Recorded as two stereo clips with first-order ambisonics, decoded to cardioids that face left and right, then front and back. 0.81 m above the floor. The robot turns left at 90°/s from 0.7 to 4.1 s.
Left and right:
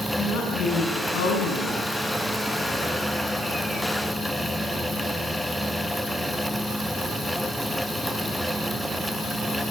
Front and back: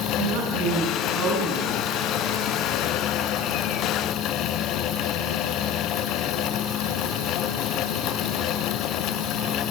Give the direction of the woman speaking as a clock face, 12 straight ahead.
7 o'clock.